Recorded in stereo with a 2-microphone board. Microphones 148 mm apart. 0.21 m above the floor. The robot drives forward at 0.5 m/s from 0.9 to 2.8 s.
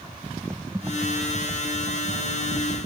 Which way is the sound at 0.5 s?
15° right (ahead or behind).